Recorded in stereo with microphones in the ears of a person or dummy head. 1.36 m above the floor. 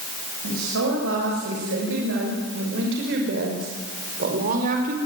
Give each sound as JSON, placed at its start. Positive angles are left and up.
{"t": 0.4, "sound": "a woman speaking", "side_deg": -80, "distance_m": 7.5}